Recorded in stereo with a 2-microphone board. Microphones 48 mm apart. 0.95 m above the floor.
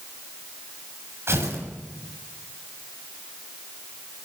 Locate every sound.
1.3 s tearing paper: 60° right (ahead or behind), 7 m